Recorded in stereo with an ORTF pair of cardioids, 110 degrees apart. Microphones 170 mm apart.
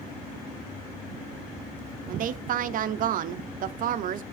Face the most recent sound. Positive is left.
turn(degrees=-55)